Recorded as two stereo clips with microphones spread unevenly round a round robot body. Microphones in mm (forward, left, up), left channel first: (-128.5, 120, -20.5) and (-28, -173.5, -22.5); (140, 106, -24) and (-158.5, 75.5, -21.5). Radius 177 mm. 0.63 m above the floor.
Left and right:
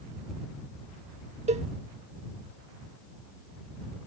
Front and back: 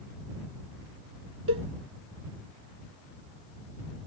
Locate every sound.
1.5 s a cowbell: 135° right